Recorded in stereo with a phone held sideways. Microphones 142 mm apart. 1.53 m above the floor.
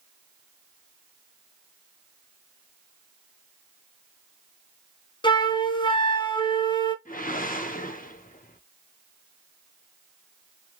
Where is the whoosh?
75° left (ahead or behind), 0.8 m.